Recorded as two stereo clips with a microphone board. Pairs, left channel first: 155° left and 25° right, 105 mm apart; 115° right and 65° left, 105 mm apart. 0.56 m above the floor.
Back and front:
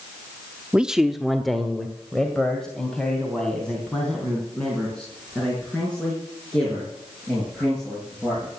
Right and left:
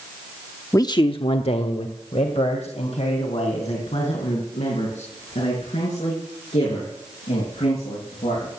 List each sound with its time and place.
0.7 s a man speaking: 95° right, 0.6 m; by 8.5 s 120° right, 9 m